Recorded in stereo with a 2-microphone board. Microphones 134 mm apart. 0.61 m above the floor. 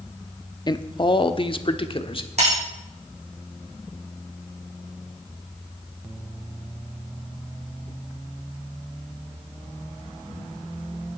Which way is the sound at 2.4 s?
55° right (ahead or behind).